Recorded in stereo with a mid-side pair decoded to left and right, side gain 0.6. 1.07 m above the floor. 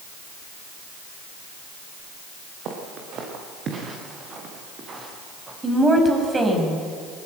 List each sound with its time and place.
2.6 s footsteps: 55° right, 6.5 m; by 5.5 s 30° right, 8 m
5.6 s a woman speaking: 20° right, 6 m